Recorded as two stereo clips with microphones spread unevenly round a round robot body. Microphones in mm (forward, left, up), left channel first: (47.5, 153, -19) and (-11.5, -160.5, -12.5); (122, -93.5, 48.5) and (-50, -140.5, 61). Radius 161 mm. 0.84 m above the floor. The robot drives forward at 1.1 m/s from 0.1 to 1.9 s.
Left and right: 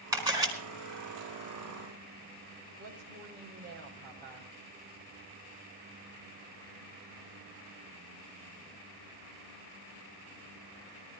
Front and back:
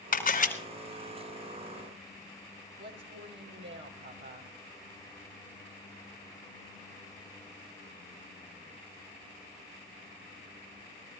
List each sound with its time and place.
0.1 s a camera shutter: 20° right, 4.5 m
2.8 s a woman speaking: 160° right, 3.5 m